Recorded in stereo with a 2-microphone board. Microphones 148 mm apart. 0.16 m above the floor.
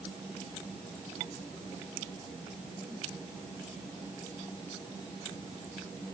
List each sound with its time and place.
Only background noise.